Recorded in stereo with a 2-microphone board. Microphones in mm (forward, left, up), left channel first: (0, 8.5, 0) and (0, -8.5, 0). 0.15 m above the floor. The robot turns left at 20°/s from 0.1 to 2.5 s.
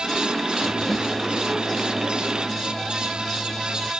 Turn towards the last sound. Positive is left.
turn(degrees=-10)